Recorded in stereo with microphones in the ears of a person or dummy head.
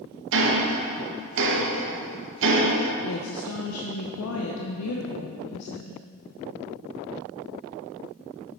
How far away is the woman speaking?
About 0.7 m.